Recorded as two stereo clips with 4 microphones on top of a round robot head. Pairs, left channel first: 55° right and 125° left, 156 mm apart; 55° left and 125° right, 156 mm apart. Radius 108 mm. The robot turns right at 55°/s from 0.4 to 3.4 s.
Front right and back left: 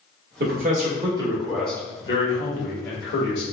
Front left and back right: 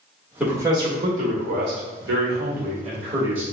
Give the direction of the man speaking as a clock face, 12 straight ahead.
7 o'clock.